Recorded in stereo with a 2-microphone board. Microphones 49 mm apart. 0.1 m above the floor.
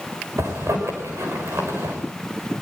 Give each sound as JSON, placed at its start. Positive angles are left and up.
{"t": 0.4, "sound": "a zipper", "side_deg": -75, "distance_m": 6.0}